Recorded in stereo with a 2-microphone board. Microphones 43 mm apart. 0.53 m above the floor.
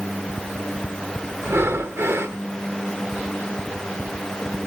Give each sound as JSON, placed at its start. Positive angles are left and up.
{"t": 1.4, "sound": "breathing", "side_deg": -70, "distance_m": 0.5}